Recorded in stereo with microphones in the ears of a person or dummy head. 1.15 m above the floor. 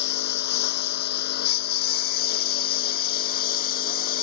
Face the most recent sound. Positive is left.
turn(degrees=45)  # may be behind; listen again after turning